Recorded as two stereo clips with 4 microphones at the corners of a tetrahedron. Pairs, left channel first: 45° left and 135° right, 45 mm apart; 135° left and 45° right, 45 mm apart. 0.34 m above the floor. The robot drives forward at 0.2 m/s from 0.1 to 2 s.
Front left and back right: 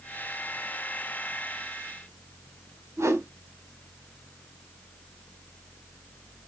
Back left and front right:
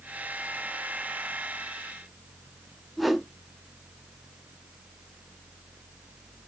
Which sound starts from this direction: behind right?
A whoosh, at 3.0 s.